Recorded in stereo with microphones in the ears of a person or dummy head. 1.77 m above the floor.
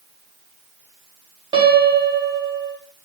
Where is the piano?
25° right (ahead or behind), 0.8 m.